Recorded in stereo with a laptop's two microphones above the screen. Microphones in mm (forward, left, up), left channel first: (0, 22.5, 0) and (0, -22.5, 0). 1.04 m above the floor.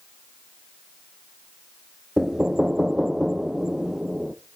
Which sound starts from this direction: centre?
Knocking, at 2.2 s.